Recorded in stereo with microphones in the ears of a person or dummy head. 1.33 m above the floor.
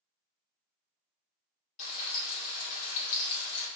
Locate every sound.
1.8 s frying: 50° left (ahead or behind), 2.0 m